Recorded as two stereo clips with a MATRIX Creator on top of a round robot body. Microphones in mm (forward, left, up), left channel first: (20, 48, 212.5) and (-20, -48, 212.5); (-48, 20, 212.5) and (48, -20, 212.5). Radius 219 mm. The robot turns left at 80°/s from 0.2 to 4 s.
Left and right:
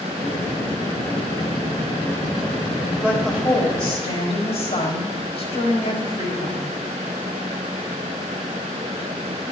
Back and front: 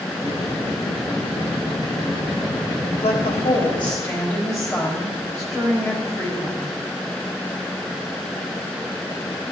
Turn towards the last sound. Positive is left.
turn(degrees=95)